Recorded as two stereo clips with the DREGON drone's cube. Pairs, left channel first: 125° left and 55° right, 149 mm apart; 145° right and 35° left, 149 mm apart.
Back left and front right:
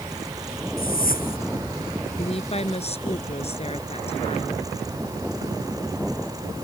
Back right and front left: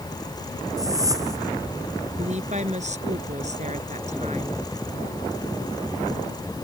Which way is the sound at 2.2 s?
75° left.